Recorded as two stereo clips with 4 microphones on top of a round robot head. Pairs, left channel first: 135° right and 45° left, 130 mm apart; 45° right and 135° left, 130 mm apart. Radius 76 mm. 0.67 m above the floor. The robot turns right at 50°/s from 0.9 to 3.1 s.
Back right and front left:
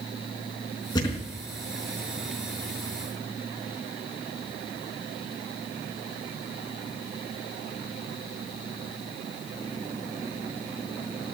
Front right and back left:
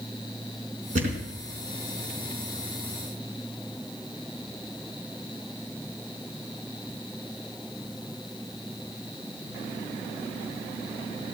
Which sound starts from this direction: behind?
A thud, at 0.9 s.